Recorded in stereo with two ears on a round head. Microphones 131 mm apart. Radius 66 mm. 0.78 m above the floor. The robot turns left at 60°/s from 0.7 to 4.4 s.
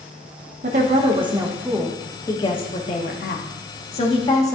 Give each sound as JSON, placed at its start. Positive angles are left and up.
{"t": 0.6, "sound": "a woman speaking", "azimuth_deg": -110, "distance_m": 1.1}